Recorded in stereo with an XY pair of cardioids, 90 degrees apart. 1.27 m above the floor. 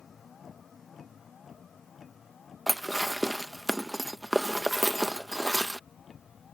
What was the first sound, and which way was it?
A vehicle, 50° left.